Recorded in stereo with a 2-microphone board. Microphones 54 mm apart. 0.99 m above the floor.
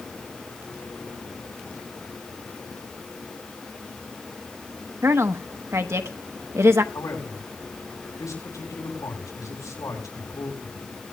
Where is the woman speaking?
55° right (ahead or behind), 1.2 m.